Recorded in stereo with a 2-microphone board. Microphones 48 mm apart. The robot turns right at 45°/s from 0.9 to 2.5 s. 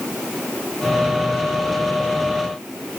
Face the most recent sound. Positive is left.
No sound to turn to.